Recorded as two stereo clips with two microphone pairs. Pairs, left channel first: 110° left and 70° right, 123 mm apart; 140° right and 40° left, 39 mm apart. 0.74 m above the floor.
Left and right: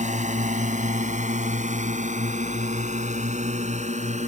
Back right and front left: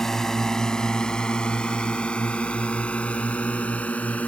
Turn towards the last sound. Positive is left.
turn(degrees=-90)